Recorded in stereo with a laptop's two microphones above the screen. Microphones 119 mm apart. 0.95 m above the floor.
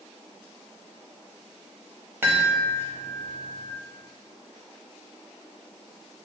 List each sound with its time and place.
2.2 s a chime: 20° right (ahead or behind), 0.8 m